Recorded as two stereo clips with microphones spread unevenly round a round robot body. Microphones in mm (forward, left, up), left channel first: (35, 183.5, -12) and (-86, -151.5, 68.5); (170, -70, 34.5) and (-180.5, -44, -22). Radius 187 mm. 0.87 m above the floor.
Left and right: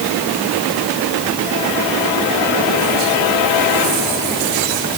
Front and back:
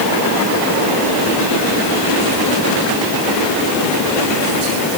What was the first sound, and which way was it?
Only background noise.